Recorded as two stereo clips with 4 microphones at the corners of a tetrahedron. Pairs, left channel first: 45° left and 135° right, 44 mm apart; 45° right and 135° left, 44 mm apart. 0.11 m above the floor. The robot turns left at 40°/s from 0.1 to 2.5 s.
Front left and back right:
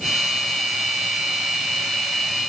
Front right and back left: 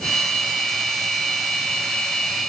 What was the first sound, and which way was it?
Only background noise.